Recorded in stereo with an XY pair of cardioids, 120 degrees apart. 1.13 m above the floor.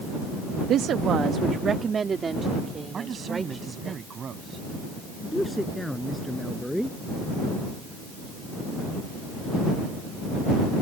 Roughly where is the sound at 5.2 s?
Ahead.